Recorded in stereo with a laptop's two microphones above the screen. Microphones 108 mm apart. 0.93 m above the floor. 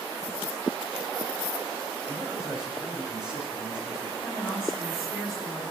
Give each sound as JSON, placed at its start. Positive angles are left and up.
{"t": 2.1, "sound": "a man speaking", "side_deg": -10, "distance_m": 4.5}
{"t": 4.2, "sound": "a woman speaking", "side_deg": -10, "distance_m": 8.5}